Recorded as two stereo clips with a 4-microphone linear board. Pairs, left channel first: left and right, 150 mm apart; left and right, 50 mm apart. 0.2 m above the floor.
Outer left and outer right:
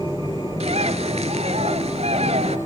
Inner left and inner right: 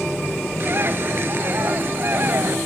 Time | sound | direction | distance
0.6 | a bird | 40° right (ahead or behind) | 0.8 m